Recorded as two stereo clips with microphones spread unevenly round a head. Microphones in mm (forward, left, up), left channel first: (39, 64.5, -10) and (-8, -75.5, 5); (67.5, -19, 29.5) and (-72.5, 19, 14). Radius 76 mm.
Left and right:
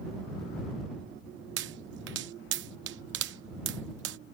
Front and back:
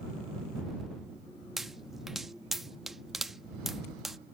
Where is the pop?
105° right.